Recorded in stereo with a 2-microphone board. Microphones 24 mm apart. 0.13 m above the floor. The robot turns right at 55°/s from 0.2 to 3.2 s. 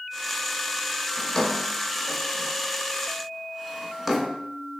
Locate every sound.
1.2 s a drawer: 25° left (ahead or behind), 0.7 m; by 4.3 s 5° right (ahead or behind), 0.7 m